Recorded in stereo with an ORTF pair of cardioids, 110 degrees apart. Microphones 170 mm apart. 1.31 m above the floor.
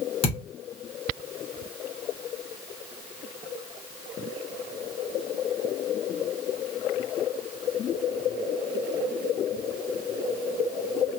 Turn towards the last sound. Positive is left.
turn(degrees=40)